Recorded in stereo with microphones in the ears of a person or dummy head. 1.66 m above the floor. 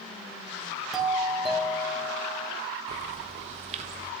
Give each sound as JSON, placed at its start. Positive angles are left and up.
{"t": 0.9, "sound": "a doorbell", "side_deg": 0, "distance_m": 3.0}
{"t": 2.9, "sound": "a bird", "side_deg": -40, "distance_m": 1.1}